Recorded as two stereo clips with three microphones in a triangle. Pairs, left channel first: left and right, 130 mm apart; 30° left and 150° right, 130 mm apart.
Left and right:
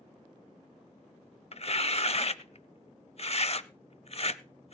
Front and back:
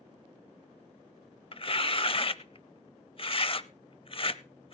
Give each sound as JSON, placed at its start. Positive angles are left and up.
{"t": 1.5, "sound": "tearing paper", "azimuth_deg": 65, "distance_m": 0.6}